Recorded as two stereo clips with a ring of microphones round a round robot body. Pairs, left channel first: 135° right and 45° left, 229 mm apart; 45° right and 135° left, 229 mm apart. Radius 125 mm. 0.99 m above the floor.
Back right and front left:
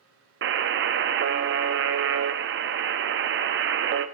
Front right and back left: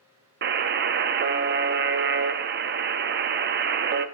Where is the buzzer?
85° left, 0.7 m.